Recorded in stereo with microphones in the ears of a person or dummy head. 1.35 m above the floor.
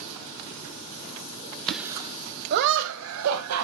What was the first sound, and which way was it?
Laughter, 5° left (ahead or behind).